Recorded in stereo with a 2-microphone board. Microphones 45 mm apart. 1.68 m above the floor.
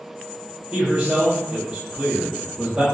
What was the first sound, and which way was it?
A man speaking, 20° right (ahead or behind).